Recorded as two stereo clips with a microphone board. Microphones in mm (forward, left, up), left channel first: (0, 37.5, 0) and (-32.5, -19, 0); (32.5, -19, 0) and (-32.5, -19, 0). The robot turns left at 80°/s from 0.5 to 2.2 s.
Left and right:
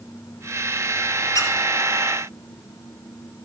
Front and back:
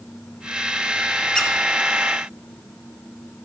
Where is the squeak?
80° left, 2 m; by 1.5 s 70° left, 2 m.